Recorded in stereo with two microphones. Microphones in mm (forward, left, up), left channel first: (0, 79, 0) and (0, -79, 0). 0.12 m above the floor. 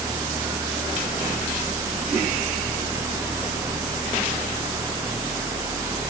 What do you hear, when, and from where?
Only background noise.